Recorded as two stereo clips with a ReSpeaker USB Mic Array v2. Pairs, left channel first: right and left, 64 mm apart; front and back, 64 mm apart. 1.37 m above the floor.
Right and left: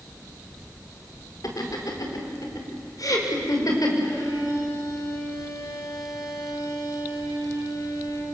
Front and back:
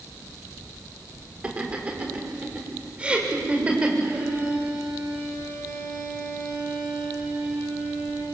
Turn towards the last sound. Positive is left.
turn(degrees=-115)